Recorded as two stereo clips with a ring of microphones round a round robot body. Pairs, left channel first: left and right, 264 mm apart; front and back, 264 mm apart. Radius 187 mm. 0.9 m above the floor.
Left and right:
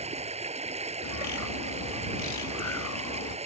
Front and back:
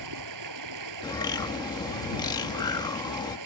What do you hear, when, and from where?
0.0 s running water: 155° right
1.0 s a bird: 75° left